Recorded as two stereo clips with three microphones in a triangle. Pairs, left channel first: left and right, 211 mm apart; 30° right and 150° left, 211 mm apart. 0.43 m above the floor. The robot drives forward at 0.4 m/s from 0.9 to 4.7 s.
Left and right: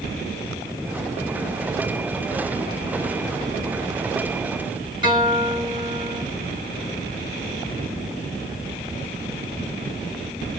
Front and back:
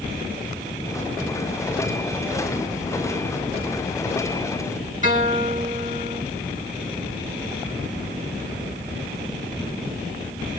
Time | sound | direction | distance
5.0 | a guitar | 155° right | 3 m